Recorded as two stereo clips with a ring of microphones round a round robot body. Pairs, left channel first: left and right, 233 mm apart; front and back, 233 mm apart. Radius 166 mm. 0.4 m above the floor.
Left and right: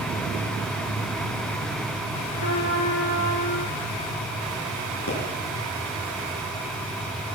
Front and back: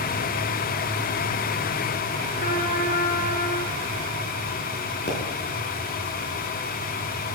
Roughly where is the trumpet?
Ahead left.